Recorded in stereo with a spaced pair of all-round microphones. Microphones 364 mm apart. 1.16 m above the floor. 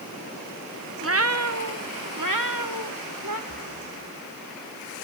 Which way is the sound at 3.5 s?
40° right (ahead or behind).